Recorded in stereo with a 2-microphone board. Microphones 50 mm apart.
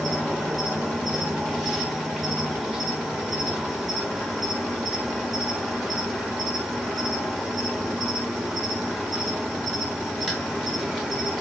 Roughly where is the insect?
Centre.